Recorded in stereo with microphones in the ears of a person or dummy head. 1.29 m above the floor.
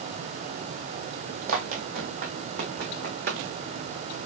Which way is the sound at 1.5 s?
45° right (ahead or behind).